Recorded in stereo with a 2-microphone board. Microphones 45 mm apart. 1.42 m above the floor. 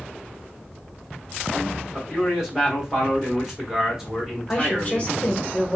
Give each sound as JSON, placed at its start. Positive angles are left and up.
{"t": 1.9, "sound": "a man speaking", "side_deg": -5, "distance_m": 1.7}
{"t": 4.5, "sound": "a woman speaking", "side_deg": 30, "distance_m": 1.2}